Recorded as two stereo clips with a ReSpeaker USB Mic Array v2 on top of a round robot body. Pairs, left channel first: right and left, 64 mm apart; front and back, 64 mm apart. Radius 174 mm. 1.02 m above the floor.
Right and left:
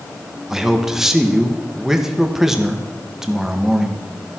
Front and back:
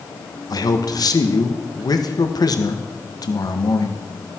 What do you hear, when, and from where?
0.5 s a man speaking: 5° left, 1.5 m